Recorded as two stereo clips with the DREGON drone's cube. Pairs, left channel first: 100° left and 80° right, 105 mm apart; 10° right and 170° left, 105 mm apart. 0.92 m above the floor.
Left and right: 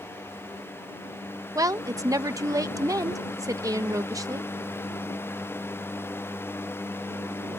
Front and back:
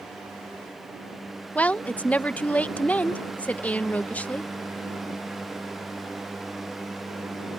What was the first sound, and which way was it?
A woman speaking, 75° right.